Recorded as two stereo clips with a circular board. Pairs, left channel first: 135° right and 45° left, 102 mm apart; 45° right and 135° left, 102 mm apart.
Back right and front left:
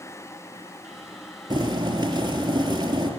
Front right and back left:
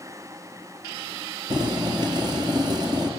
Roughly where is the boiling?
Left.